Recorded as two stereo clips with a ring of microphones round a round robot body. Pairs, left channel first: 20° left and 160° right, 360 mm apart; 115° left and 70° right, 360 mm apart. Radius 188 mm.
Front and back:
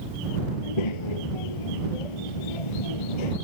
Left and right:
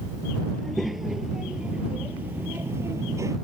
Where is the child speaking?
25° left; by 3.4 s 15° left.